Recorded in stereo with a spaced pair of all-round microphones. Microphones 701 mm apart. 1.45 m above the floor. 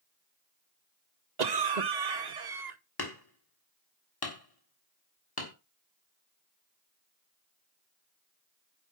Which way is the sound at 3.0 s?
30° left (ahead or behind).